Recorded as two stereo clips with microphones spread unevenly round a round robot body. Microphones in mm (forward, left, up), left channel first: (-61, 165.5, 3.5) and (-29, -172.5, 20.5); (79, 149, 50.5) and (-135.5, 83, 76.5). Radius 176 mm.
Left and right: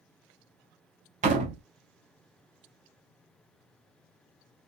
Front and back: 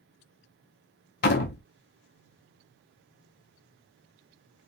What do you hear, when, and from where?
1.2 s a door slam: 15° right, 0.6 m